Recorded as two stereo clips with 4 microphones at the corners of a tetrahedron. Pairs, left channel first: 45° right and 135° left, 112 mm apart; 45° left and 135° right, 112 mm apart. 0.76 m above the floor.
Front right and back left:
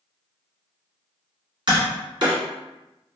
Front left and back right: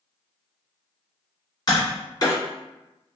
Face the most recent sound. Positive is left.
turn(degrees=95)